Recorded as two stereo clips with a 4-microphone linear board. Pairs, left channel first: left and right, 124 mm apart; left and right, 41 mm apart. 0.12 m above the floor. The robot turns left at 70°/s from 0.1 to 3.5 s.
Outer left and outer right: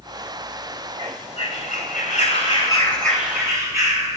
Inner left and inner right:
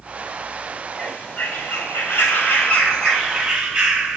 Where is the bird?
150° left, 4.5 m; by 4.2 s 25° right, 4.5 m.